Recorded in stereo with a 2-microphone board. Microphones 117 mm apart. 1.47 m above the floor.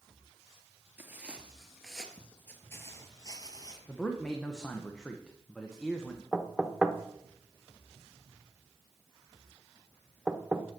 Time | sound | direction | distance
1.0 | footsteps | 15° right (ahead or behind) | 1.6 m
3.9 | a man speaking | 5° left (ahead or behind) | 1.0 m
6.3 | knocking | centre (ahead or behind) | 0.8 m